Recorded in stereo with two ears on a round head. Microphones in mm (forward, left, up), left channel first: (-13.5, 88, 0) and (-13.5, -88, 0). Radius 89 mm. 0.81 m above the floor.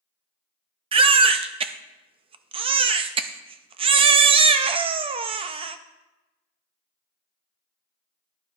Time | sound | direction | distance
0.9 | a baby crying | 30° right (ahead or behind) | 0.5 m